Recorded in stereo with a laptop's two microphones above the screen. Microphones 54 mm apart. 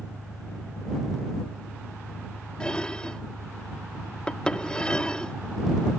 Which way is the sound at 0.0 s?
30° left (ahead or behind).